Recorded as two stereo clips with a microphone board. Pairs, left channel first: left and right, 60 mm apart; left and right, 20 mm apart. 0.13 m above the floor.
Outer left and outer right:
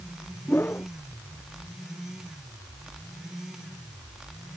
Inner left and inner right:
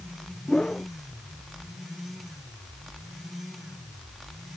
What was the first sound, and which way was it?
A whoosh, 35° left (ahead or behind).